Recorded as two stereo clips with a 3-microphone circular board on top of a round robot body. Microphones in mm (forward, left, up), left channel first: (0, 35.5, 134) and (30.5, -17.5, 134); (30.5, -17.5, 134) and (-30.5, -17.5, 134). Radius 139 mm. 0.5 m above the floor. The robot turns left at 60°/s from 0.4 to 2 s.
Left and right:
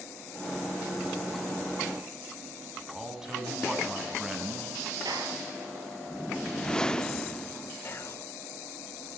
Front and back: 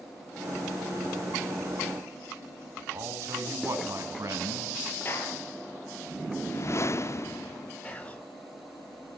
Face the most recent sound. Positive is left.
turn(degrees=70)